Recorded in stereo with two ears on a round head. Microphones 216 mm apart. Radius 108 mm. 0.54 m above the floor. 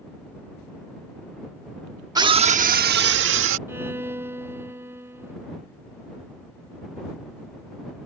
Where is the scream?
15° right (ahead or behind); by 3.6 s 55° right (ahead or behind).